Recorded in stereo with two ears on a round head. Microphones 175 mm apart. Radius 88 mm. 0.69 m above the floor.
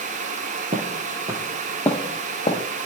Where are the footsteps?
40° right (ahead or behind), 1.1 m; by 2.6 s 25° left (ahead or behind), 1.5 m.